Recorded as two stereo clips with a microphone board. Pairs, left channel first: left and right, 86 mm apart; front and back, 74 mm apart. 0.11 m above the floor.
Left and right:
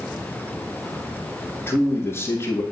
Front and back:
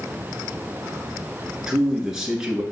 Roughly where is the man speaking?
Left.